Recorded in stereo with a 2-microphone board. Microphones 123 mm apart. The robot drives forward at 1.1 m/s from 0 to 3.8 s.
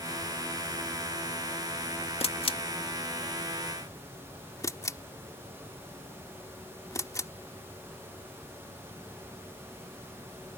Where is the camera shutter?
55° left (ahead or behind); by 7.3 s 25° left (ahead or behind).